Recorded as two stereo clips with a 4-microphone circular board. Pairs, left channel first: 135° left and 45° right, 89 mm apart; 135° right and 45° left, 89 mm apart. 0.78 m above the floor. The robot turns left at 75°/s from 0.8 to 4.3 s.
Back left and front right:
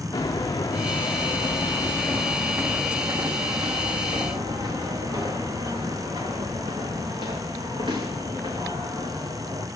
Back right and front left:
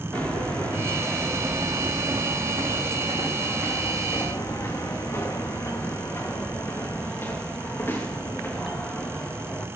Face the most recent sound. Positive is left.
turn(degrees=-65)